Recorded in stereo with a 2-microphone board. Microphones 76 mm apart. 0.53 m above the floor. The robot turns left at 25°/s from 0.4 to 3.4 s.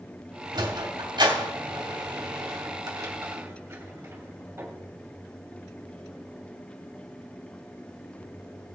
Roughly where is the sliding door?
Right.